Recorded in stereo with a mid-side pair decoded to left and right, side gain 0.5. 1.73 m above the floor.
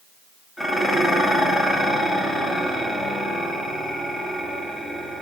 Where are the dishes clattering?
15° left, 2.5 m.